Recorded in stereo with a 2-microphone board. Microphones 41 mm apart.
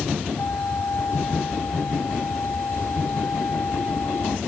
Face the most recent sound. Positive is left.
turn(degrees=80)